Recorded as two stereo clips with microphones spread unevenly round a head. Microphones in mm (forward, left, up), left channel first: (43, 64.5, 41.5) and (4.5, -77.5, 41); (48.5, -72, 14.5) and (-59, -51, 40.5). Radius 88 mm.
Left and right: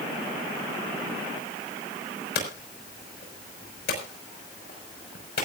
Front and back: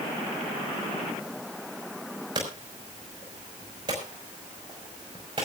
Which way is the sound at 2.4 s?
105° left.